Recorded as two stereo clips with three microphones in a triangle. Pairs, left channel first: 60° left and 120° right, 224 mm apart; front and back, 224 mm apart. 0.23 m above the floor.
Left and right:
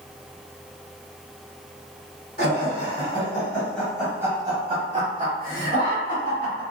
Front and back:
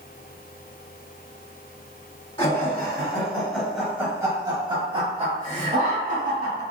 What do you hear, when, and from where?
2.4 s laughter: 55° left, 1.2 m; by 6.6 s 135° right, 1.8 m